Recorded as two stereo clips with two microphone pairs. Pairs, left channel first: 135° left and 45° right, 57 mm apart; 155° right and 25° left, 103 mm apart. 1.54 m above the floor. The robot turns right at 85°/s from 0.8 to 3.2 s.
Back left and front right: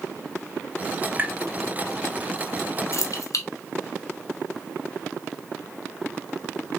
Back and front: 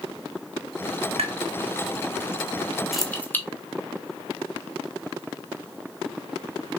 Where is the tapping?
20° left, 0.6 m; by 1.4 s 35° left, 0.6 m.